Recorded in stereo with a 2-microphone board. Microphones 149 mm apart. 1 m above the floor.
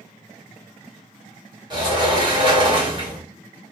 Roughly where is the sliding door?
Right.